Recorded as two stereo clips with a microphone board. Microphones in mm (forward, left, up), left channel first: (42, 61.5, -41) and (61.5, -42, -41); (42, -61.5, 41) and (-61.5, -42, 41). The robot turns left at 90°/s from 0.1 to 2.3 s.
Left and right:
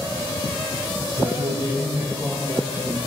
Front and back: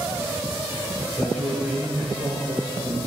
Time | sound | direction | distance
1.1 | a man speaking | 75° right | 2.5 m